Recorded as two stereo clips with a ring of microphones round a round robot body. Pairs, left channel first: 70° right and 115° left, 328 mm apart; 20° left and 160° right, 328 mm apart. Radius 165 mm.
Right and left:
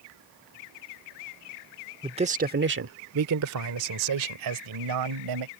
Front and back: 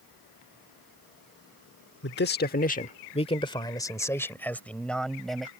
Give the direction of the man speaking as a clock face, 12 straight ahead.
10 o'clock.